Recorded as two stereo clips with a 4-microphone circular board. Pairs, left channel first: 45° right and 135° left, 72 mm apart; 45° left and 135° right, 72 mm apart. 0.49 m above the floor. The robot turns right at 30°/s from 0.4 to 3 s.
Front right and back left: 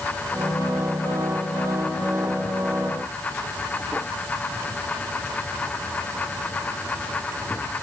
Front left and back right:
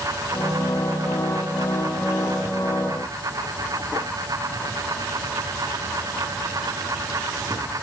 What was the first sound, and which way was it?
Only background noise.